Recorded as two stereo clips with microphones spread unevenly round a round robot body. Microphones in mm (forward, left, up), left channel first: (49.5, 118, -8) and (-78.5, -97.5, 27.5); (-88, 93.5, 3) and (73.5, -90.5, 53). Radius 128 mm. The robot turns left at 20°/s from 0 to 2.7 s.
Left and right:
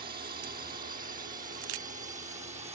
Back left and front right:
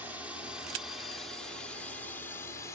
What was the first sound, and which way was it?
A drone, 145° right.